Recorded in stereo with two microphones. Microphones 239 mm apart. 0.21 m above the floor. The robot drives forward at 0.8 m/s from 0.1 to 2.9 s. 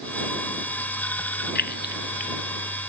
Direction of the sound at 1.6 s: 45° left (ahead or behind).